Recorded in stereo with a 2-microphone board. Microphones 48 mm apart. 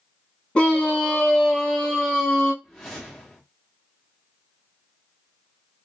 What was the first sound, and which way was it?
A scream, 25° left (ahead or behind).